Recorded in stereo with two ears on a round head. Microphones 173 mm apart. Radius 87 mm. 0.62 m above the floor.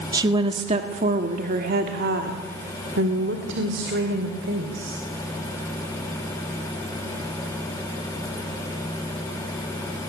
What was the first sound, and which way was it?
A woman speaking, 20° right (ahead or behind).